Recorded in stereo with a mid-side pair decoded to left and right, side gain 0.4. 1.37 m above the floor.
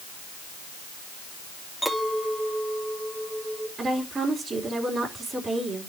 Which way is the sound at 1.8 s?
5° left.